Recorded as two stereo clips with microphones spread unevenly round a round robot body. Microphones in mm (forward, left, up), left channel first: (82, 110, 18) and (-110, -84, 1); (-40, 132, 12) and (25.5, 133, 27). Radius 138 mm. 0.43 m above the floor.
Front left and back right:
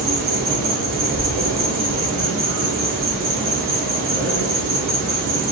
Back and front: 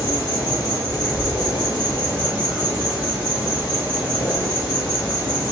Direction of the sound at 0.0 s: 80° right.